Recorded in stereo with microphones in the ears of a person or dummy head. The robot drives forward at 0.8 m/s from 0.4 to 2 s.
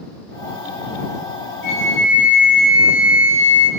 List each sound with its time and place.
1.6 s a flute: 60° left (ahead or behind), 0.9 m; by 3.7 s 65° left (ahead or behind), 0.9 m